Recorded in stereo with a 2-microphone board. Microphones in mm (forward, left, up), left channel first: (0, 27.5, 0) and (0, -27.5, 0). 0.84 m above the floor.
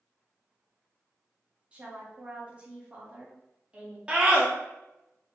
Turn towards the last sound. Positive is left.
turn(degrees=-20)  # may be behind; listen again after turning